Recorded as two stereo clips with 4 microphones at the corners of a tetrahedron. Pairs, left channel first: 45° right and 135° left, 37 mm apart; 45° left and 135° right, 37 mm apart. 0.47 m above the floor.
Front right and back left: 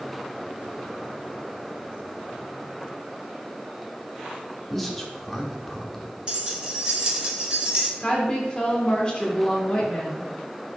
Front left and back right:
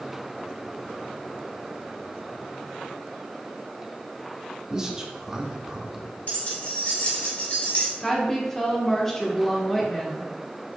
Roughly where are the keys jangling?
Left.